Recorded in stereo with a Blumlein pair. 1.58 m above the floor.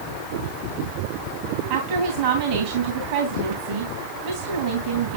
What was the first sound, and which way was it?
A woman speaking, 50° right.